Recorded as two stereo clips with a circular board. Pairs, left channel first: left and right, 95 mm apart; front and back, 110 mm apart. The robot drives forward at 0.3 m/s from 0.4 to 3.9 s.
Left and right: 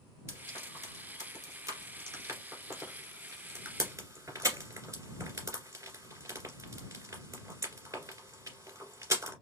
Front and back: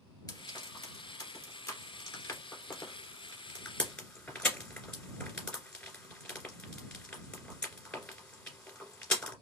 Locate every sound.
0.3 s frying: 40° right, 2.5 m; by 9.3 s 75° right, 2.0 m